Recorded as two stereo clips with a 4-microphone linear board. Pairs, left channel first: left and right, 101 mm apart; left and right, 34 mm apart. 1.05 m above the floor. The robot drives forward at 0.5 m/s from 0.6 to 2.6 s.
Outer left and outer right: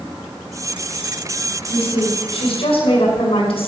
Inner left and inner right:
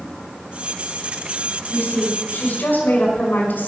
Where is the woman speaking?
75° left (ahead or behind), 5 m; by 3.7 s 70° left (ahead or behind), 5.5 m.